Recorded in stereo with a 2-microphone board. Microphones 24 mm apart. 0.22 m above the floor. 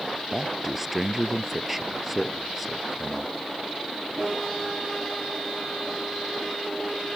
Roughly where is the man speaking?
Centre.